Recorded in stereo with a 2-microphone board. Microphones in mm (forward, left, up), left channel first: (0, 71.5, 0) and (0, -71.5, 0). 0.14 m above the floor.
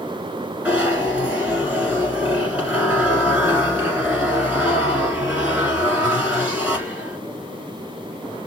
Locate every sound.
0.7 s a zipper: 10° right (ahead or behind), 2.0 m